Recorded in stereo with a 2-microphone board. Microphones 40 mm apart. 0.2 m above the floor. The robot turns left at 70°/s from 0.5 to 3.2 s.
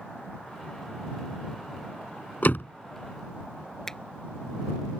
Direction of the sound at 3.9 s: 10° left (ahead or behind).